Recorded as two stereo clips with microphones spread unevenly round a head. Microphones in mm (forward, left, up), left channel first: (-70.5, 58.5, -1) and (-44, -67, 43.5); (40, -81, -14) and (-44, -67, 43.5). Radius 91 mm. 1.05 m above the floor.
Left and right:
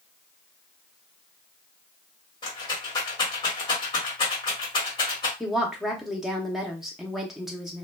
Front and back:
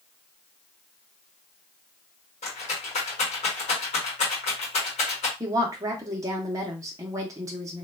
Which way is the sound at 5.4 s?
70° left.